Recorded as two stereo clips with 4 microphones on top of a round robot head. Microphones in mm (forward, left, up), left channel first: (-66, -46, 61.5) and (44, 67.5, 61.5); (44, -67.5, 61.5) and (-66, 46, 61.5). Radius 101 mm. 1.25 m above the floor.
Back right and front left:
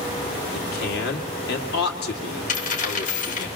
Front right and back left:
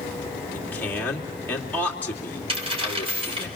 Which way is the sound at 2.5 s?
170° right.